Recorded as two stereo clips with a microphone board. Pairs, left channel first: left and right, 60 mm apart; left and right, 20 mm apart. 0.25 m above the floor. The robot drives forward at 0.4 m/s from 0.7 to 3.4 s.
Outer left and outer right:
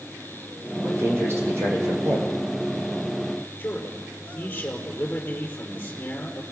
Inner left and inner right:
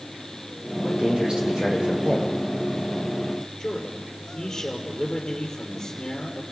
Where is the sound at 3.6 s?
25° left (ahead or behind), 5.5 m.